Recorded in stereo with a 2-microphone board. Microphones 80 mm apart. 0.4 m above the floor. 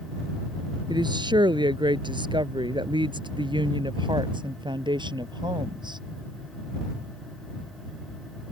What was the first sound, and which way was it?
A woman speaking, 70° right (ahead or behind).